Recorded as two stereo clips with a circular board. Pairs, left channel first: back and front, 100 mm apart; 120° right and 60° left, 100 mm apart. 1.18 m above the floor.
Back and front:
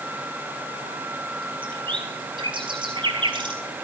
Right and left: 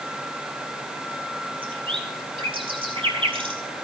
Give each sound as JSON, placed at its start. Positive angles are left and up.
{"t": 1.6, "sound": "a bird", "azimuth_deg": 35, "distance_m": 4.0}